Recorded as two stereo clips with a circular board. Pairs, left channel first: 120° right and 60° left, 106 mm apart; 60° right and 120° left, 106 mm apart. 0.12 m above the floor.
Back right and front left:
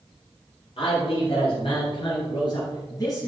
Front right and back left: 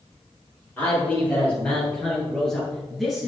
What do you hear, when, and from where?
0.8 s a man speaking: 130° right, 3.5 m; by 3.3 s 155° right, 2 m